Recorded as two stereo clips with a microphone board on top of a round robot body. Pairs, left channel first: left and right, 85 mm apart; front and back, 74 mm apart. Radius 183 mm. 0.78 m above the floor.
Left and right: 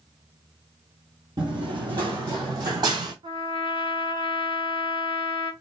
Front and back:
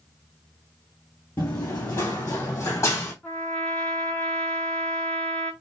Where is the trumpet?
70° right, 3 m.